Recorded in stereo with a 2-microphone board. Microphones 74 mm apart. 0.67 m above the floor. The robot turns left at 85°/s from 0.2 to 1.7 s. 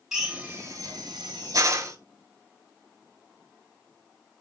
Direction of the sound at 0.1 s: 5° right (ahead or behind).